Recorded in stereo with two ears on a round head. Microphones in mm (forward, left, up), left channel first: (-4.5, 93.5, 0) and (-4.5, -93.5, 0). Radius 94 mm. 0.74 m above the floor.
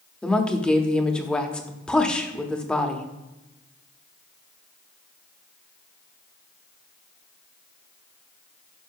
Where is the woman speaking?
5° left (ahead or behind), 1.0 m.